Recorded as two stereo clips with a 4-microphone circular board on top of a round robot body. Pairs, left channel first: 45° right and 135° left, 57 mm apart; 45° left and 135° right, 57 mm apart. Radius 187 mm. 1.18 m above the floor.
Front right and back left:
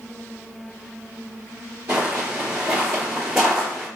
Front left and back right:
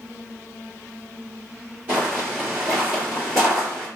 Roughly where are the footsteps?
Behind.